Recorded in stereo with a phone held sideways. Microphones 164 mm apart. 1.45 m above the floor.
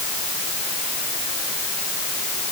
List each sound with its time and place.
Only background noise.